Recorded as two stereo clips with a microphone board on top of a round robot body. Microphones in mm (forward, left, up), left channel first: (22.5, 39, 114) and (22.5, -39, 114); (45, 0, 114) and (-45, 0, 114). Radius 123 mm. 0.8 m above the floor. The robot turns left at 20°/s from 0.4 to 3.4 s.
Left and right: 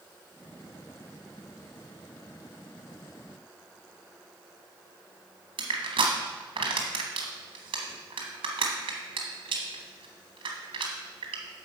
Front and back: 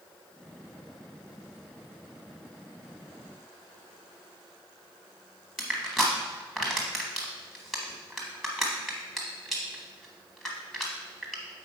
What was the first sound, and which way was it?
Crushing, 90° right.